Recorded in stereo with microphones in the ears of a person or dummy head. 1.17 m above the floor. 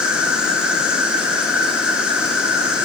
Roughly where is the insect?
Centre.